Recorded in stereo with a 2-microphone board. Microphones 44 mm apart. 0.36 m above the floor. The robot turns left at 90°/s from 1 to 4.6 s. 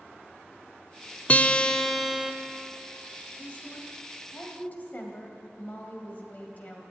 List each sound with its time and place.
1.3 s a guitar: 65° left, 0.6 m; by 2.3 s 25° right, 0.6 m
3.4 s a woman speaking: 150° left, 1.7 m; by 6.8 s 40° left, 1.7 m